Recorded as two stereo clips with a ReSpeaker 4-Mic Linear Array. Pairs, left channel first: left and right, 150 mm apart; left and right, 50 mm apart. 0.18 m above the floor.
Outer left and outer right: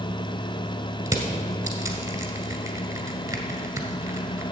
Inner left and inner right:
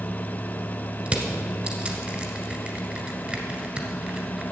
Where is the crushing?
25° right (ahead or behind), 1.7 m.